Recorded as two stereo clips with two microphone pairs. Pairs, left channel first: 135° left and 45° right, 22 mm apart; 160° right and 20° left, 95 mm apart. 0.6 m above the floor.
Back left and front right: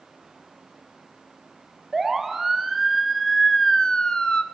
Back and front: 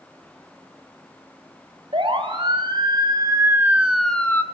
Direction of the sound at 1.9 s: 35° left.